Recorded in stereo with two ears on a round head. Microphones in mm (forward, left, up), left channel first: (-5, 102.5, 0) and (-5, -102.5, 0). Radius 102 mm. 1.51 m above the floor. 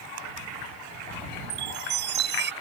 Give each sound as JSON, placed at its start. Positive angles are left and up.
{"t": 1.5, "sound": "a chime", "side_deg": -50}